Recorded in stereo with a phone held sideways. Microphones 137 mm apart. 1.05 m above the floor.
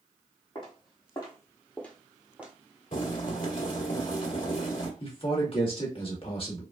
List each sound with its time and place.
0.6 s footsteps: 40° left (ahead or behind), 1.7 m; by 2.5 s 15° right (ahead or behind), 1.0 m
2.9 s boiling: 65° left (ahead or behind), 1.5 m
5.0 s a man speaking: 45° left (ahead or behind), 1.4 m